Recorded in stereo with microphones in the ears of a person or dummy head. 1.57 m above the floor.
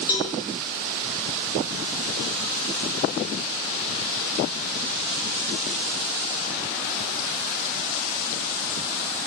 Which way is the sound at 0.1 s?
20° left (ahead or behind).